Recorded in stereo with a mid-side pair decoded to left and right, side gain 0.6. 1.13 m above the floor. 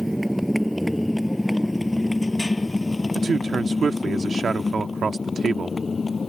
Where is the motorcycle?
5° right; by 6.3 s 25° left.